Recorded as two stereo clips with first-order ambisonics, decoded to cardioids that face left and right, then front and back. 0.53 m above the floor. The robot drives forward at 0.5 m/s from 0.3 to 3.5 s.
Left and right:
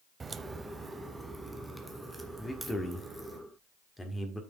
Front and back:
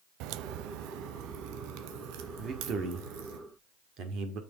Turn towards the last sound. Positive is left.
turn(degrees=170)